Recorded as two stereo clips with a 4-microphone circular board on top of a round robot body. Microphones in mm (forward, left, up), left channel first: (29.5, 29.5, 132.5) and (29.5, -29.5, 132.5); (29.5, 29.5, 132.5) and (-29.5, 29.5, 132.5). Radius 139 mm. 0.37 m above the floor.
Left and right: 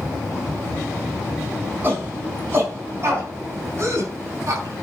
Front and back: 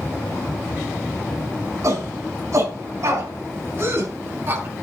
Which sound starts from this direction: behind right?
A shout, at 1.8 s.